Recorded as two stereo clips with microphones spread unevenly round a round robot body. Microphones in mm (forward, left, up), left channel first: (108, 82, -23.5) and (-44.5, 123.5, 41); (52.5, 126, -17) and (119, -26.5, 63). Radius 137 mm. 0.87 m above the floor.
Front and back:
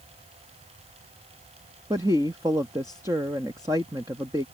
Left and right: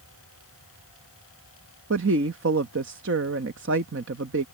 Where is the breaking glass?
I don't hear breaking glass.